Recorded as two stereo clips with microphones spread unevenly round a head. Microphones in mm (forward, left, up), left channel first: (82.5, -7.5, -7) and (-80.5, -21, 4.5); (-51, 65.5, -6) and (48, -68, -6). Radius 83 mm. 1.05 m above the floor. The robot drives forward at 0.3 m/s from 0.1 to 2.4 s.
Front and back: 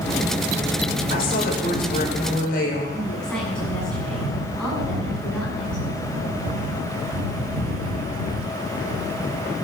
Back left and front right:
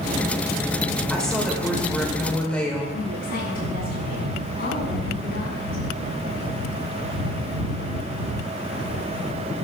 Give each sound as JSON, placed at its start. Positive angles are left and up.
{"t": 1.1, "sound": "a woman speaking", "azimuth_deg": 40, "distance_m": 4.5}
{"t": 2.9, "sound": "a woman speaking", "azimuth_deg": 90, "distance_m": 7.5}